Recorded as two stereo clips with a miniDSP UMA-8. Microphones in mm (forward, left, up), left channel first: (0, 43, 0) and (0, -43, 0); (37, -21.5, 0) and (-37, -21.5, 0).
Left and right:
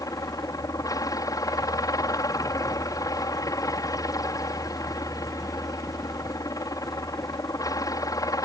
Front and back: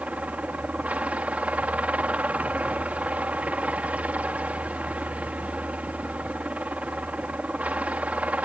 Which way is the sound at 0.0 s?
115° left.